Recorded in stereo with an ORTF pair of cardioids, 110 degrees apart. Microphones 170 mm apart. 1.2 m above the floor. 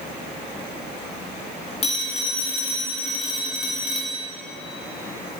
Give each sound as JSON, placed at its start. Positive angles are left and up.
{"t": 1.8, "sound": "a phone ringing", "azimuth_deg": 40, "distance_m": 1.8}